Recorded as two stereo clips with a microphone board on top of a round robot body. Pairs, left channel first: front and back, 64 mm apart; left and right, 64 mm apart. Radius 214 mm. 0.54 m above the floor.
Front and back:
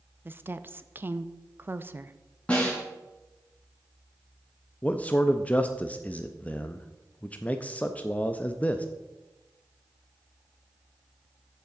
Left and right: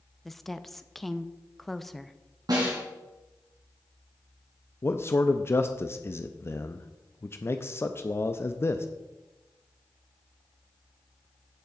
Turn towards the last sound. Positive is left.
turn(degrees=60)